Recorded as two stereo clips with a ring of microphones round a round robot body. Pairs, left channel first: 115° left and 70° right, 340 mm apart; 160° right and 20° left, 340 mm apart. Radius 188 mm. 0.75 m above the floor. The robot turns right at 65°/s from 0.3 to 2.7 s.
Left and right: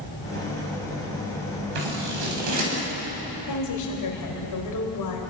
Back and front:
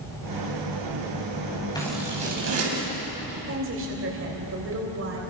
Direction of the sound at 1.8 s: 80° right.